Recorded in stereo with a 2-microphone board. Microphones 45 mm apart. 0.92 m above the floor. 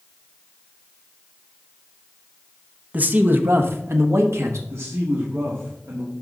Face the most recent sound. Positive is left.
turn(degrees=-70)  # may be behind; listen again after turning